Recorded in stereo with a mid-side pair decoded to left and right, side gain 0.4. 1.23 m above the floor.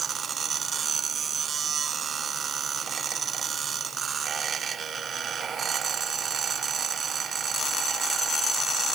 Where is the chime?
I don't hear a chime.